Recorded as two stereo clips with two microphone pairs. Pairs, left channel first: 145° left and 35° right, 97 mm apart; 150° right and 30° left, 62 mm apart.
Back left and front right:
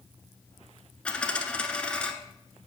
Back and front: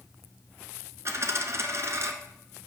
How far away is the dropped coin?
About 1.1 m.